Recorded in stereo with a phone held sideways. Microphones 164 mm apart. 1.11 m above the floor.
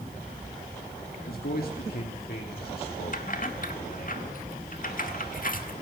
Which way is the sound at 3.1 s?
55° left (ahead or behind).